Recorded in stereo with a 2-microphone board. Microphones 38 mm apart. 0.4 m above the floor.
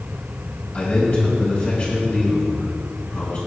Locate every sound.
0.7 s a man speaking: 45° left (ahead or behind), 4 m